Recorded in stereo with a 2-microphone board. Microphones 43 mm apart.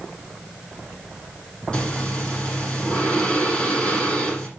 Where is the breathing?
25° left (ahead or behind), 6 m.